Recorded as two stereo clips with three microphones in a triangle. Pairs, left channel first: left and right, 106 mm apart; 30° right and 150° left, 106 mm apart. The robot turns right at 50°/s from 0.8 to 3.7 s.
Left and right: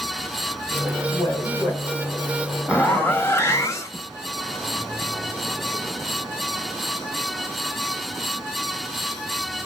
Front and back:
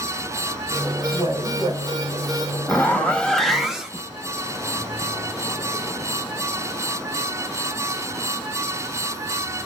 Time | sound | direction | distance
1.1 | a woman speaking | 100° left | 3 m
2.7 | a zipper | 20° left | 0.7 m